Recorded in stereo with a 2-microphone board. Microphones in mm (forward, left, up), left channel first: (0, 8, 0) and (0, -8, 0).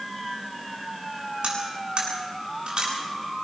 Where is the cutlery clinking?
80° right, 8 m.